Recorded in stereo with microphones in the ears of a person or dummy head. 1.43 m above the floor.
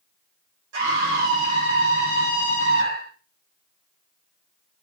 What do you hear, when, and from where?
0.7 s a scream: 70° right (ahead or behind), 5 m